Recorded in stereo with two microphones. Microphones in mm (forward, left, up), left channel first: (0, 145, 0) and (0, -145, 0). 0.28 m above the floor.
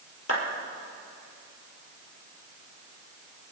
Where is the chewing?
I don't hear chewing.